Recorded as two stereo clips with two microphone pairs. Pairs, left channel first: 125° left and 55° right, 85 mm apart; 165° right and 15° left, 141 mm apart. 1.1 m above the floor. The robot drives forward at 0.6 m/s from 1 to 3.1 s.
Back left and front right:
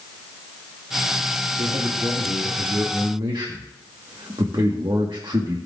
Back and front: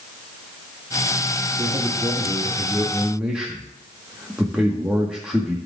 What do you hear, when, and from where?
1.6 s a man speaking: 40° right, 1.9 m; by 5.6 s 65° right, 1.4 m